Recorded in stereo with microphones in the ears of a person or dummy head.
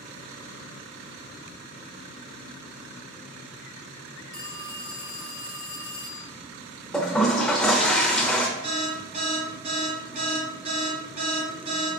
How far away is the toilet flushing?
About 0.6 m.